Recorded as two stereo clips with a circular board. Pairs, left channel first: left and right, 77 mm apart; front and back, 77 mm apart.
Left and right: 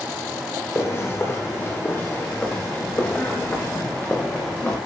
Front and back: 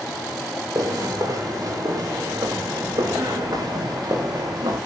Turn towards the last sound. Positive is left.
turn(degrees=165)